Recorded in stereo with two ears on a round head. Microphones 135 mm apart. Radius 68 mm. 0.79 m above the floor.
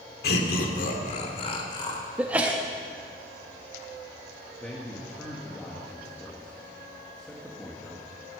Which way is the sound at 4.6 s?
5° left (ahead or behind).